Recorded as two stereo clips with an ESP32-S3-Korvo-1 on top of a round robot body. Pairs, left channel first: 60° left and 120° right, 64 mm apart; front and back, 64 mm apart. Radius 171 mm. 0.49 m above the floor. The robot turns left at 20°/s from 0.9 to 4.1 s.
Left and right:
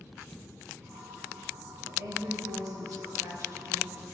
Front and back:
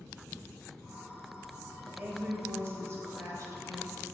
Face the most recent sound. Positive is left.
turn(degrees=-160)